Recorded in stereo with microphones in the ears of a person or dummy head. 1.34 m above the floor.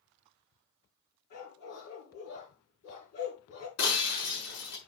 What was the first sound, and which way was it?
A dog barking, 70° left (ahead or behind).